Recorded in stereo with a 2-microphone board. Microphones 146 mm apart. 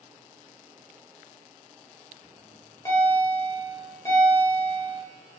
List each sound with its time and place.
2.2 s a bell: 20° left (ahead or behind), 1.2 m